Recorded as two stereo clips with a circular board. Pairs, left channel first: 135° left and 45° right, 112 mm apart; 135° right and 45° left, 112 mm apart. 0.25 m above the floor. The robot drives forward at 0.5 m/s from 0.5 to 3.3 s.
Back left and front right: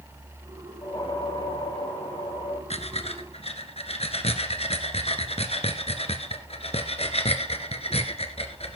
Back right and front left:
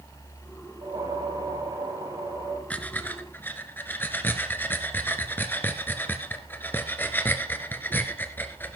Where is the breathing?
150° left, 1.3 m; by 8.8 s 155° left, 1.5 m.